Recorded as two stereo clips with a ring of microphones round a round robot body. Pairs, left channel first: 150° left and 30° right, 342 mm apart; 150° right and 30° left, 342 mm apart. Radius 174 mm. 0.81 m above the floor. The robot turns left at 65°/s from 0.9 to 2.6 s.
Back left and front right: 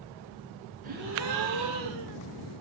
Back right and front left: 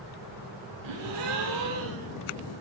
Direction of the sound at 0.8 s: 35° left.